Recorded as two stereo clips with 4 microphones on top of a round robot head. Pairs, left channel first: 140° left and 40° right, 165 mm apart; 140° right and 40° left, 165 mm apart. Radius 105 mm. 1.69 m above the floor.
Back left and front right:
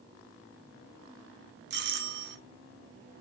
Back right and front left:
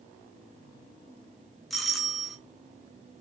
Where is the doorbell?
50° right, 1.3 m.